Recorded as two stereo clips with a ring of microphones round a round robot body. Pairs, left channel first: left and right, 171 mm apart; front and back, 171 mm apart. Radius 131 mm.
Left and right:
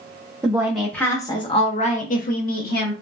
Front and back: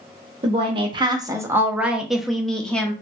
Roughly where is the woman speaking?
Behind right.